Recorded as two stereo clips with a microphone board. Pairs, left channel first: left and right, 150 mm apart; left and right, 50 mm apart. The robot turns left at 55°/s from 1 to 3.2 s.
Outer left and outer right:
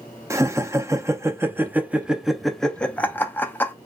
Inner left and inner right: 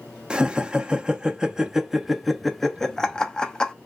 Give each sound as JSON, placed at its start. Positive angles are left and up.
{"t": 0.3, "sound": "laughter", "side_deg": -20, "distance_m": 0.6}